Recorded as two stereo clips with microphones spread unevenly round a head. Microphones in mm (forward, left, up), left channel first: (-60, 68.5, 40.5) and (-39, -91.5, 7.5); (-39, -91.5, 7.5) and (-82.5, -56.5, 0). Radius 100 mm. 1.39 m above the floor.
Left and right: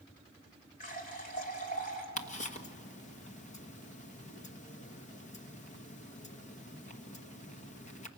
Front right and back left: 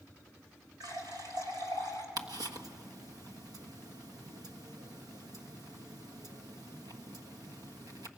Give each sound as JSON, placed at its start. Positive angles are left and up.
{"t": 0.8, "sound": "a running tap", "azimuth_deg": 130, "distance_m": 4.0}
{"t": 2.2, "sound": "ticking", "azimuth_deg": 140, "distance_m": 1.4}